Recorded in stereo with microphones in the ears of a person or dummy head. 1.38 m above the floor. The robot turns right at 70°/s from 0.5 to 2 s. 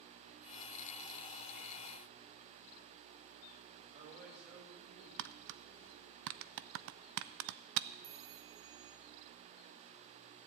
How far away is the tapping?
About 0.6 m.